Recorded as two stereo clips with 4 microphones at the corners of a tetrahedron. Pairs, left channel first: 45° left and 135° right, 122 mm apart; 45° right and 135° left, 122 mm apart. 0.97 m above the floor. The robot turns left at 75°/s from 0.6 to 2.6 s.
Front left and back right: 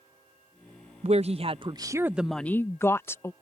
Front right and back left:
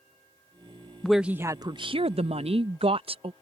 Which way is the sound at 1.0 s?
130° right.